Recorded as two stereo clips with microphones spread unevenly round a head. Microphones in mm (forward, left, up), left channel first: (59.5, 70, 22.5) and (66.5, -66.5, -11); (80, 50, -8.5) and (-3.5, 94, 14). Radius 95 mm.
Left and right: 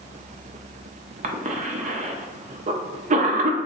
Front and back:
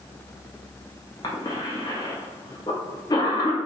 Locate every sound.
1.2 s a cough: 80° right, 0.5 m